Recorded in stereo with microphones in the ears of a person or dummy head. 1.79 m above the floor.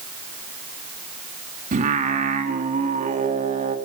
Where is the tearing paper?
No tearing paper in this recording.